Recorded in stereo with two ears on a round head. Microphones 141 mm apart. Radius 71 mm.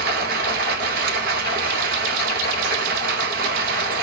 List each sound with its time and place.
0.0 s running water: 75° right (ahead or behind), 1.0 m